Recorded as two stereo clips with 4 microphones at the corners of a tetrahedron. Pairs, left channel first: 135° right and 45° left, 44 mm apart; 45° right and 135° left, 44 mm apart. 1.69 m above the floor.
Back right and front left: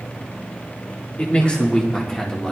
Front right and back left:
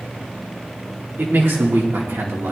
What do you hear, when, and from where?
1.2 s a man speaking: 165° left, 2.0 m; by 2.5 s 145° left, 2.5 m